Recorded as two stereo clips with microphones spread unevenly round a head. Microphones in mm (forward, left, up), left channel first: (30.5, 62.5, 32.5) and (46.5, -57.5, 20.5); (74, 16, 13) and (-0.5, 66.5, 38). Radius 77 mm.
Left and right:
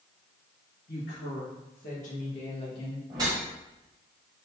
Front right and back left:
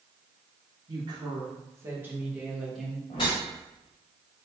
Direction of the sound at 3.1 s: 45° right.